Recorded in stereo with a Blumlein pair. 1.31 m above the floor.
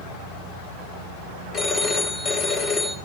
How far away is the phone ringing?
About 4.5 m.